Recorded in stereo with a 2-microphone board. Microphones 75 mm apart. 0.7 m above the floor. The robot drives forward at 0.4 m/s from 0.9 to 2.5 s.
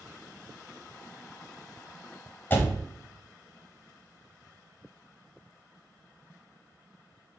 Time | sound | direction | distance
2.5 | a door slam | 30° left (ahead or behind) | 0.6 m